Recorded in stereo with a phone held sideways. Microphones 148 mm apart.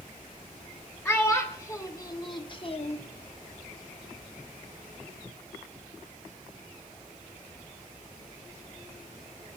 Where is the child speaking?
15° left (ahead or behind), 2 m; by 3.0 s 50° left (ahead or behind), 0.8 m.